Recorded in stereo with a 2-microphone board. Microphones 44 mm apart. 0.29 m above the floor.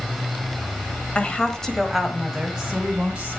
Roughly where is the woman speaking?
Left.